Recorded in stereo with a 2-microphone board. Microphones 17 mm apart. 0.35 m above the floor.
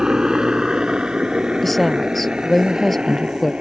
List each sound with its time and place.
0.0 s a helicopter: 45° right (ahead or behind); by 3.6 s 65° right (ahead or behind)
1.6 s a woman speaking: centre (ahead or behind)